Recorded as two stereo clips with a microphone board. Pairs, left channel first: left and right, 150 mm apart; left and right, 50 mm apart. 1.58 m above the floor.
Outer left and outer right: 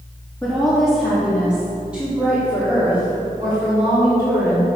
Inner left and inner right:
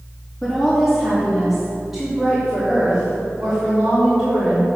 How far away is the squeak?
No squeak in this recording.